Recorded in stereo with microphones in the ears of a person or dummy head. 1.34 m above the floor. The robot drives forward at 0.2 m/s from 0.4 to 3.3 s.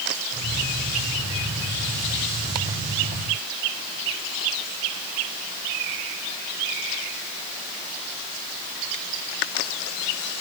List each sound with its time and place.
Only background noise.